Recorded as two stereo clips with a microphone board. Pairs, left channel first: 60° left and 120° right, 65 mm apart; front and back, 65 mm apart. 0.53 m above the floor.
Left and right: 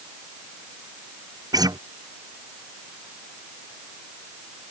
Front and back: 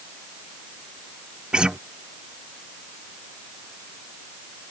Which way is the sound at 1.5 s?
100° right.